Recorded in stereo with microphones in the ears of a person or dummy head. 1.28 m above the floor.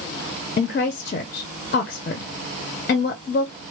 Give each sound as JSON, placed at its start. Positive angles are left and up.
{"t": 0.6, "sound": "a woman speaking", "side_deg": 50, "distance_m": 0.6}